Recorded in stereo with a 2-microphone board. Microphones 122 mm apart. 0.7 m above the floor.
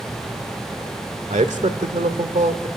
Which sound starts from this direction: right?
A man speaking, at 1.3 s.